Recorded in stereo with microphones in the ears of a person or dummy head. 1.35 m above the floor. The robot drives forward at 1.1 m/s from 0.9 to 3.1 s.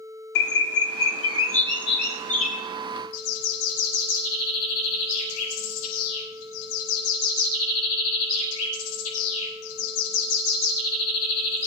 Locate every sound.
0.3 s a bird: 65° left (ahead or behind), 1.4 m; by 2.6 s 40° left (ahead or behind), 2 m
3.1 s a bird: 80° left, 5 m